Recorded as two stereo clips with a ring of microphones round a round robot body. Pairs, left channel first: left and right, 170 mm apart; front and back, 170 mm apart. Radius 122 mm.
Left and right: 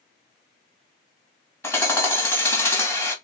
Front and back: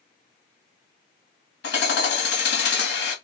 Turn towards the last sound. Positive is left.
turn(degrees=10)